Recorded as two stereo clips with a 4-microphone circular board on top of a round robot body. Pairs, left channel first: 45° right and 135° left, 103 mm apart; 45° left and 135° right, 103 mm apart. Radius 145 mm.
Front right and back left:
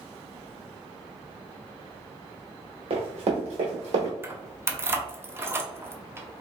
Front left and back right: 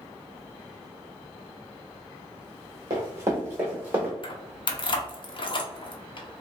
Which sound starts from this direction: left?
Keys jangling, at 4.2 s.